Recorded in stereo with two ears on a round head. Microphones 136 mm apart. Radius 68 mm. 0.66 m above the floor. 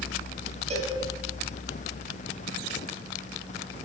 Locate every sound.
0.7 s a cowbell: 45° right (ahead or behind), 2.5 m